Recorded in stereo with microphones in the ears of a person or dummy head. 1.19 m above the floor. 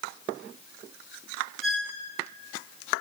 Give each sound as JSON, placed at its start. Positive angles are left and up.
{"t": 1.6, "sound": "a squeak", "side_deg": 0, "distance_m": 2.5}